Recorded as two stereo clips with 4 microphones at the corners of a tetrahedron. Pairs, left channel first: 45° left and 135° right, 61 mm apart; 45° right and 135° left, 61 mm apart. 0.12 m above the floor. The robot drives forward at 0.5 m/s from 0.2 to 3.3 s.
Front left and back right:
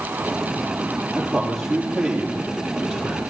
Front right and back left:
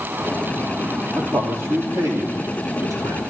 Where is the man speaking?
135° left, 3.5 m; by 3.2 s 145° left, 4 m.